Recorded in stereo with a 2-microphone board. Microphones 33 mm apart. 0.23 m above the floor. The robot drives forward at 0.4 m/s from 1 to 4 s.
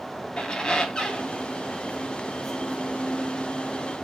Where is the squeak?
25° left (ahead or behind), 0.8 m; by 4.1 s 20° left (ahead or behind), 1.0 m.